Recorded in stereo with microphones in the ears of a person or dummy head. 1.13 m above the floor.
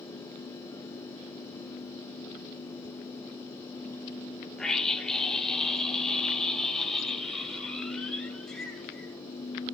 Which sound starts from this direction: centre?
A scream, at 4.6 s.